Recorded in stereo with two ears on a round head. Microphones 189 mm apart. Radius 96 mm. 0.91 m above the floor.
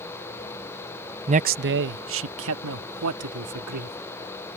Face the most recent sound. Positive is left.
turn(degrees=-80)